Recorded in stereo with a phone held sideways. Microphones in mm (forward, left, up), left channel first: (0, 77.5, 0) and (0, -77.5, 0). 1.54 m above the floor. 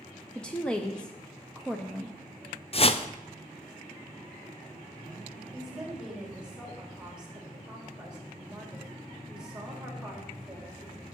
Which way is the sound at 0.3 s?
5° left (ahead or behind).